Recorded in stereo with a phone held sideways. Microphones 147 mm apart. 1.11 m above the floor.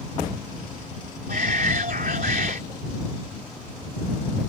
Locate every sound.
1.3 s a shout: 80° right